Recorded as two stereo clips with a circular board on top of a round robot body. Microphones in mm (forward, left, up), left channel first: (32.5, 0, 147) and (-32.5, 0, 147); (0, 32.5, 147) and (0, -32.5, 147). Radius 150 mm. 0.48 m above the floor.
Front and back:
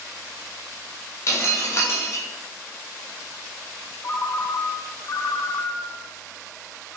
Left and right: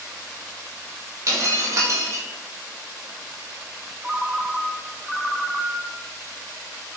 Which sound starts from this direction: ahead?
A ringtone, at 4.0 s.